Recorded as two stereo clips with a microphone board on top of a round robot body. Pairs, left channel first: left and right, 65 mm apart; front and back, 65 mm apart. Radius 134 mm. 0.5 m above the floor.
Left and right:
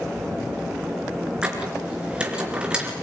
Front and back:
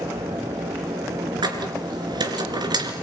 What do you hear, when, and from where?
1.4 s a squeak: 165° right, 3.5 m